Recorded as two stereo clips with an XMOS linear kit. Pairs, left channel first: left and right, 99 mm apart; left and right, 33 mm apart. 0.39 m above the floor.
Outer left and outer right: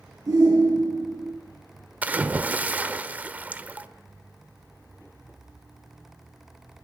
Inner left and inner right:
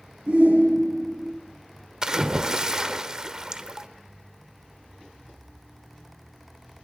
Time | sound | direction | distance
0.3 | a shout | 35° right (ahead or behind) | 5.5 m
2.0 | a splash | 15° right (ahead or behind) | 1.3 m